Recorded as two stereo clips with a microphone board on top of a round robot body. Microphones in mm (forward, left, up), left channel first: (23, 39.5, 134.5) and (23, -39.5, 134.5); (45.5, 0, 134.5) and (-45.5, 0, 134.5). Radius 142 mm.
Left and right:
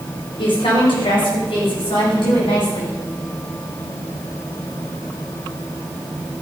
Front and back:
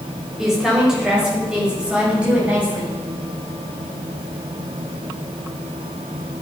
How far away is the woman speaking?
About 5 m.